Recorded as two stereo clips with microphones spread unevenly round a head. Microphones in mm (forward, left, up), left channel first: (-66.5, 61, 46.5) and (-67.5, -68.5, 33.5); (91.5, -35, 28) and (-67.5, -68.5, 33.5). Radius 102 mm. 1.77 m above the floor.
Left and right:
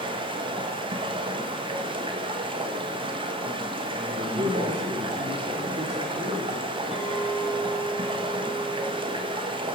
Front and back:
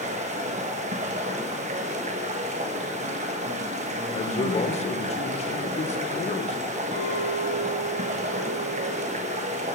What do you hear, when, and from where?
0.0 s running water: 135° right, 1.4 m
4.1 s a man speaking: 35° right, 1.6 m
6.9 s a clink: 175° right, 6 m